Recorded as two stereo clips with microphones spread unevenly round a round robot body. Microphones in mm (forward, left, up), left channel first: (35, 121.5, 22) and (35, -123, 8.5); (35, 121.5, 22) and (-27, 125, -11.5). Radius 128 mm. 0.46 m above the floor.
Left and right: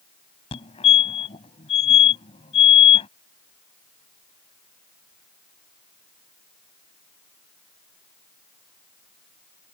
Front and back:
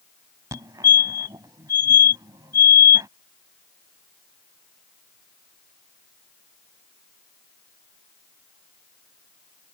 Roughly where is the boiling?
No boiling in this recording.